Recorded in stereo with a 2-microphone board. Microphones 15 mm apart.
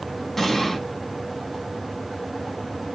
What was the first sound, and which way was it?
An explosion, 35° left (ahead or behind).